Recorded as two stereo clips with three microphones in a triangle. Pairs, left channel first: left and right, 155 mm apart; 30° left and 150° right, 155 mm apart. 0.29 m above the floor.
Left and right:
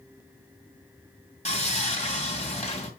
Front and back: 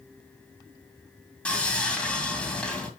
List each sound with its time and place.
1.4 s sawing: 110° left, 2.5 m